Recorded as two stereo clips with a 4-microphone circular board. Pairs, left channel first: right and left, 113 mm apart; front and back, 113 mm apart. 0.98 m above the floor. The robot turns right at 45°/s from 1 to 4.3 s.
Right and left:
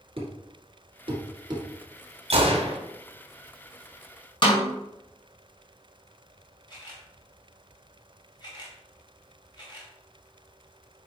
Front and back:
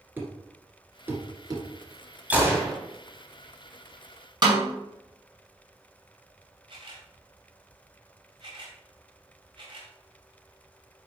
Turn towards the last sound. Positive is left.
turn(degrees=-140)